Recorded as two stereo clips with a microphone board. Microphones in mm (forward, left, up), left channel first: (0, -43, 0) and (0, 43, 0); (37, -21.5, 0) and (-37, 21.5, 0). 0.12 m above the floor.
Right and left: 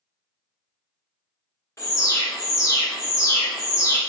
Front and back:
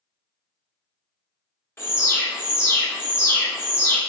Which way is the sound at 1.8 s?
70° right.